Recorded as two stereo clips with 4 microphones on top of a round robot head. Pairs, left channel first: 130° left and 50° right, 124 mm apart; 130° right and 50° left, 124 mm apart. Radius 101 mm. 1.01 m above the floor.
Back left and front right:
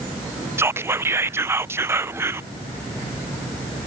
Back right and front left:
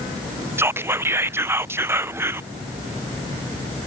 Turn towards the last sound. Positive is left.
turn(degrees=0)